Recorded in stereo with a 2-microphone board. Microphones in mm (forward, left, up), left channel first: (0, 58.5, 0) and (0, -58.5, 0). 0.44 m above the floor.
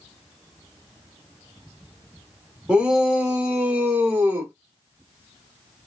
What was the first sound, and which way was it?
A shout, 10° right (ahead or behind).